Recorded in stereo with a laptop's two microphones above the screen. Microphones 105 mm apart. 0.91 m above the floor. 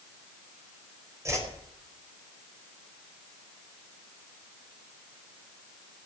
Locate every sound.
1.2 s a whoosh: 30° right (ahead or behind), 4.5 m